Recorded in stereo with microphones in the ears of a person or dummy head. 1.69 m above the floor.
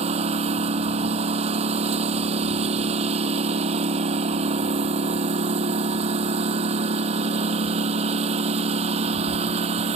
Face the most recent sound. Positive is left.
turn(degrees=-35)  # may be behind; listen again after turning